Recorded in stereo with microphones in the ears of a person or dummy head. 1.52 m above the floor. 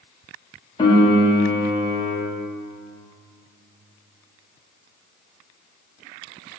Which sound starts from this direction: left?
A piano, at 0.8 s.